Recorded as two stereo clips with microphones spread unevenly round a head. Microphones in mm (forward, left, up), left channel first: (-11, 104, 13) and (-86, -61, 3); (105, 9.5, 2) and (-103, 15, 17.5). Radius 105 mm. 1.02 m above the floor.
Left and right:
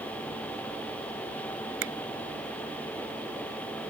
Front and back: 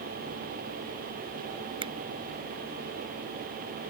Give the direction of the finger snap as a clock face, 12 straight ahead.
4 o'clock.